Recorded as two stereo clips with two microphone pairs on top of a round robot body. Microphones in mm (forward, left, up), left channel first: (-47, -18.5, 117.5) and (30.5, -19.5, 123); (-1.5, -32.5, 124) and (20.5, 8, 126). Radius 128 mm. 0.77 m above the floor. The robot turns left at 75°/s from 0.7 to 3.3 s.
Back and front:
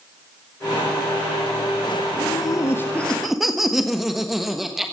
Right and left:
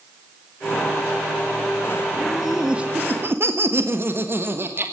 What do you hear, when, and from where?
2.2 s laughter: 170° left, 1.4 m; by 4.9 s 90° left, 1.4 m